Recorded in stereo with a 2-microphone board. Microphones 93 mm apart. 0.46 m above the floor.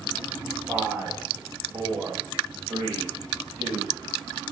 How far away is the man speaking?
About 3.5 m.